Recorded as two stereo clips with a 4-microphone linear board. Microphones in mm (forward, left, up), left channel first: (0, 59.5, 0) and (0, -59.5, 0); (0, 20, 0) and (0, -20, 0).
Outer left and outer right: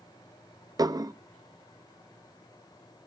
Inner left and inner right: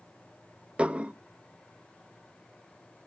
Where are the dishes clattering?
30° right (ahead or behind), 0.7 m.